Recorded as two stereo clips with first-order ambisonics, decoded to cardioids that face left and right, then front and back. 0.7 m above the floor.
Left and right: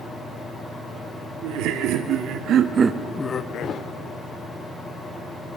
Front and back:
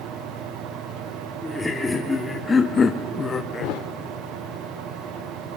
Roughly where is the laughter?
Right.